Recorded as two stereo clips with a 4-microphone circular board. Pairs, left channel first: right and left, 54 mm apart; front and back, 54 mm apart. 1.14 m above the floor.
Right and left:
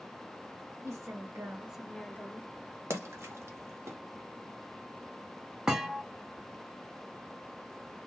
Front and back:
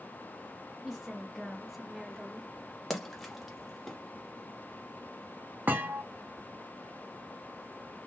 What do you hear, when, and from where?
0.8 s a woman speaking: 95° left, 0.9 m; by 2.5 s 90° right, 0.7 m
2.9 s a splash: 90° left, 0.9 m
5.7 s a thud: 165° left, 0.6 m